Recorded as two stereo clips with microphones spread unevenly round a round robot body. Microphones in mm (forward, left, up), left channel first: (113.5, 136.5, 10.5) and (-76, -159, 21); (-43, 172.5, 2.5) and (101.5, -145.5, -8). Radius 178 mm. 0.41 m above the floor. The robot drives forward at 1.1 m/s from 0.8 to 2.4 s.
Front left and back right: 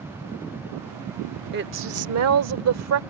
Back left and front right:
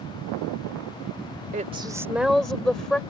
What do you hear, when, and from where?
1.5 s a woman speaking: 100° right; by 3.0 s 155° right